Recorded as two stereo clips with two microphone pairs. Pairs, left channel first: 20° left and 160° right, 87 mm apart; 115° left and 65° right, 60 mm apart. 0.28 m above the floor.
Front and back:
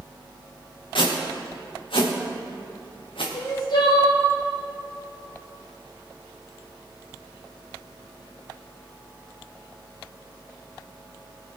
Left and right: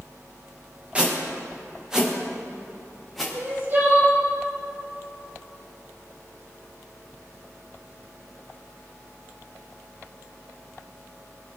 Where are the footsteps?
5° left, 3.5 m; by 3.2 s 25° left, 3.5 m.